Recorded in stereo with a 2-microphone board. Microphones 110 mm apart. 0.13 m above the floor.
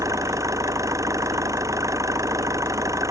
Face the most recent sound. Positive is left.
turn(degrees=-30)  # may be behind; listen again after turning